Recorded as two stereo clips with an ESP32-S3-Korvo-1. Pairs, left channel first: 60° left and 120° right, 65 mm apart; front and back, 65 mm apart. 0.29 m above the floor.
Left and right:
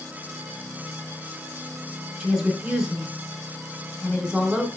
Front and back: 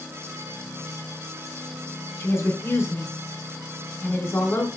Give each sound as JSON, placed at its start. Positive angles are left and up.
{"t": 2.2, "sound": "a woman speaking", "azimuth_deg": -50, "distance_m": 2.5}